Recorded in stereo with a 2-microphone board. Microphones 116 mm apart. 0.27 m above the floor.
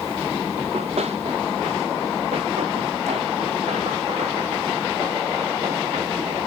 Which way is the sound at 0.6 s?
75° right (ahead or behind).